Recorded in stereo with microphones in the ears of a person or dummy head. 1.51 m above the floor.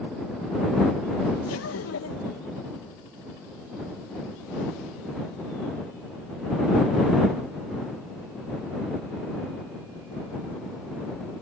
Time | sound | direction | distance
1.4 | laughter | 80° left | ?